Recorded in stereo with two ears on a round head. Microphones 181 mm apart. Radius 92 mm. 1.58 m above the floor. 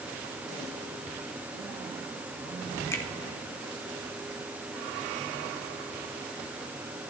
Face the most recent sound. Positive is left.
turn(degrees=15)  # may be behind; listen again after turning